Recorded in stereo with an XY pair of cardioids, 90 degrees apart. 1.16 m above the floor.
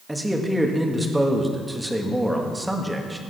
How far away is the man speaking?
About 1.8 m.